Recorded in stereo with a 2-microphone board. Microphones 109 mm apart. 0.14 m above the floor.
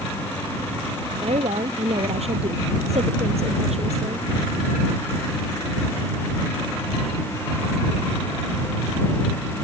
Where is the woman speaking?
70° right (ahead or behind).